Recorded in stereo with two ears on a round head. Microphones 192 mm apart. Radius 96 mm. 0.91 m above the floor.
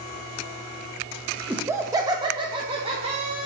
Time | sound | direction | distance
1.5 | laughter | 10° right (ahead or behind) | 0.6 m